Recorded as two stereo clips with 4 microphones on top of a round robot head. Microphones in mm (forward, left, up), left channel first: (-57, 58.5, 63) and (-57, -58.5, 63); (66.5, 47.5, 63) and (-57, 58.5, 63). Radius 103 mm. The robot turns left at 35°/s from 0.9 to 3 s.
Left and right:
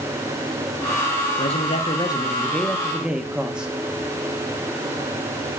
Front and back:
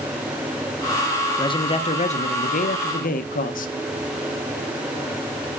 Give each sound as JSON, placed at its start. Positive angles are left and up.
{"t": 1.4, "sound": "a man speaking", "azimuth_deg": 50, "distance_m": 0.9}